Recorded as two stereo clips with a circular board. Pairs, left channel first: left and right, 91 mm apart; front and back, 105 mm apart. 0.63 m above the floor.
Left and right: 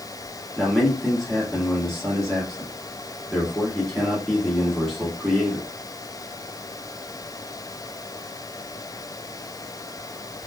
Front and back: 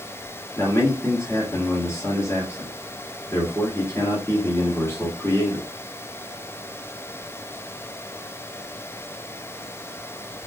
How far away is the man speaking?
About 1.2 m.